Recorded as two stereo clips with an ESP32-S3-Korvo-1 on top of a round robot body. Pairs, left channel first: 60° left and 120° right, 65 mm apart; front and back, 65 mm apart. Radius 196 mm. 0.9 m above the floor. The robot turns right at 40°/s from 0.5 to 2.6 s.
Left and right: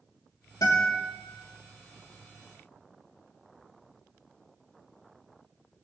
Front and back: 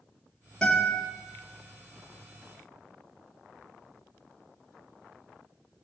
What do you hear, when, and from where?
0.6 s a guitar: 75° left, 3 m; by 1.1 s 95° left, 3 m